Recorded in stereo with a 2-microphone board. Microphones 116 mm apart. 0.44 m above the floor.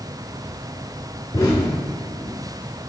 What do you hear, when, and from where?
1.3 s an explosion: 35° left (ahead or behind), 0.9 m